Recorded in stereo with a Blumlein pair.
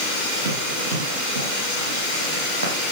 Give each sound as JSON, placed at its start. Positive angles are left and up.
{"t": 0.5, "sound": "running footsteps", "azimuth_deg": -65, "distance_m": 8.5}